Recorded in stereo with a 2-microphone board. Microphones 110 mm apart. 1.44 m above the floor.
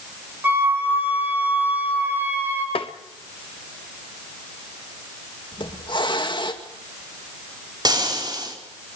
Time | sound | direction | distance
0.4 | a flute | 15° right (ahead or behind) | 6 m
2.8 | tapping | 55° left (ahead or behind) | 1.5 m
5.5 | a hiss | 45° left (ahead or behind) | 2.5 m
7.8 | frying | 40° right (ahead or behind) | 4.5 m